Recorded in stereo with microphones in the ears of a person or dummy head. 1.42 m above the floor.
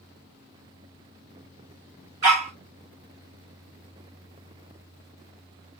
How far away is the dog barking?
About 0.8 m.